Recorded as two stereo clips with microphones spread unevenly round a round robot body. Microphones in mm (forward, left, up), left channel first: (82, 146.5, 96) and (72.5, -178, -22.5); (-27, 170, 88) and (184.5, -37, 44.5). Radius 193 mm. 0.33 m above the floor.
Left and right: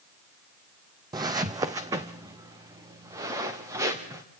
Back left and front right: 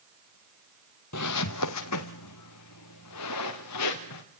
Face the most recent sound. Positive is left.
turn(degrees=-175)